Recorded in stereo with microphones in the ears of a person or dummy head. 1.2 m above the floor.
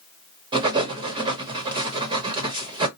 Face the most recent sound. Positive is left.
turn(degrees=-30)  # may be behind; listen again after turning